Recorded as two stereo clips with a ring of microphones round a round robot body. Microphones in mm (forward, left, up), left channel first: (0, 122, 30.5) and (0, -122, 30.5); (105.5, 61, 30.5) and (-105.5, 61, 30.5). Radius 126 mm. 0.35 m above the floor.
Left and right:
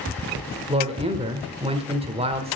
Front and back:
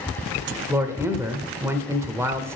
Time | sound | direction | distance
0.7 | a man speaking | 115° right | 1.2 m